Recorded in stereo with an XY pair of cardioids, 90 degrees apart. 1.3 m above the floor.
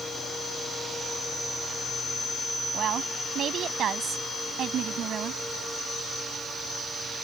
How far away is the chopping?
No chopping in this recording.